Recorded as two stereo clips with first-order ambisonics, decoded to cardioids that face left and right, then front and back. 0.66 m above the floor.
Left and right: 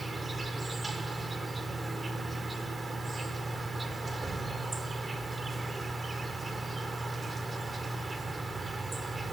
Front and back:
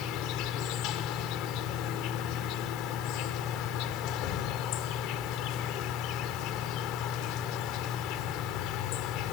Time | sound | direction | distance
0.0 | an insect | 20° right | 1.7 m